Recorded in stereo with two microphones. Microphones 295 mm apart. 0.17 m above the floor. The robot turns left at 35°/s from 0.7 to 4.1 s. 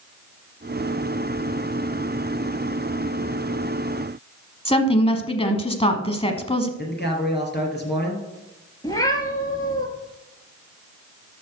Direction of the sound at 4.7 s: 20° left (ahead or behind).